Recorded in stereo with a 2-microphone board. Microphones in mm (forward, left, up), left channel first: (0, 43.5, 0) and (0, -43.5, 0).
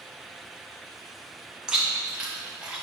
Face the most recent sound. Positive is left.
turn(degrees=-10)  # may be behind; listen again after turning